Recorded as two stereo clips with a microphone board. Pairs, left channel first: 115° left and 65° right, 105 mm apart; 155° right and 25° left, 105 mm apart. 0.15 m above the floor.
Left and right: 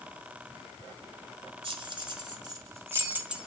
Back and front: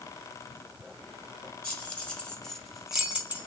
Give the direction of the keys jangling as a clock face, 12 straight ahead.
3 o'clock.